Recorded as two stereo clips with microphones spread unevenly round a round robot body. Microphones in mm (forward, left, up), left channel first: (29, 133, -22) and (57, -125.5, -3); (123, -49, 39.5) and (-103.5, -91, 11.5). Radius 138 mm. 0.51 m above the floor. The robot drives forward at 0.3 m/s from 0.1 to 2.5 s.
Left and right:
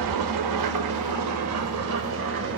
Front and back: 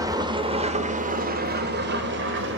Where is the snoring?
I don't hear snoring.